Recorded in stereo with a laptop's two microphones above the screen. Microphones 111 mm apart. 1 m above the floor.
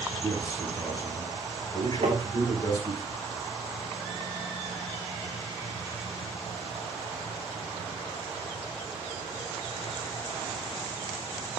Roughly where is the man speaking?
Left.